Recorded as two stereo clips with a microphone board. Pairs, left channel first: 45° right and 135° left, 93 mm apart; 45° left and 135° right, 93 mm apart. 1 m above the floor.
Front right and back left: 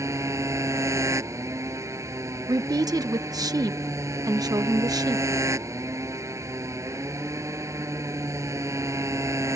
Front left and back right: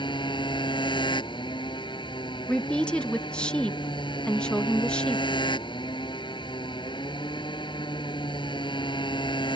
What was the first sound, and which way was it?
A motorcycle, 80° left.